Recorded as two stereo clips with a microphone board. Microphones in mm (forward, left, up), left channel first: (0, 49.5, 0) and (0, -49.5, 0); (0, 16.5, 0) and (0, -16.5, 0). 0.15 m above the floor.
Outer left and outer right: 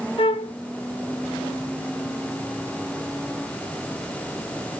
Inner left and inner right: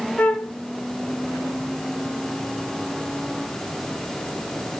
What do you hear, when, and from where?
0.2 s a flute: 65° left (ahead or behind), 0.6 m